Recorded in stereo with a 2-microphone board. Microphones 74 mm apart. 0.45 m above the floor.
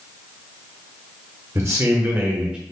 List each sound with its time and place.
1.6 s a man speaking: 40° right (ahead or behind), 1.0 m; by 2.6 s 10° right (ahead or behind), 1.0 m